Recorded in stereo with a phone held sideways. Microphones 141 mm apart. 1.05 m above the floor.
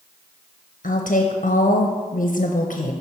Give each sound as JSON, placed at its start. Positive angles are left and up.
{"t": 0.8, "sound": "a woman speaking", "side_deg": 65, "distance_m": 0.6}